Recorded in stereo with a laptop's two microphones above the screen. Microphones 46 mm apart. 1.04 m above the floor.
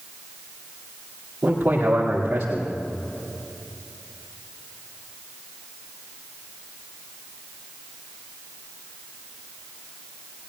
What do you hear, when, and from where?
1.4 s a man speaking: 35° right (ahead or behind), 2.5 m